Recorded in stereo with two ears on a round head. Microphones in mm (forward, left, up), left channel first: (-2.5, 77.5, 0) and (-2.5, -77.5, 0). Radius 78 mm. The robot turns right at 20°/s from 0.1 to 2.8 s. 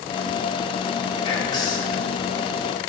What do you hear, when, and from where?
1.2 s whispering: 30° left (ahead or behind), 1.5 m; by 2.0 s 20° left (ahead or behind), 1.5 m